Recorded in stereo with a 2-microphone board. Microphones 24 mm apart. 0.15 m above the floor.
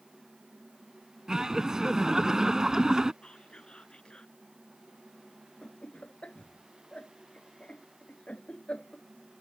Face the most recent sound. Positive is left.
turn(degrees=55)  # may be behind; listen again after turning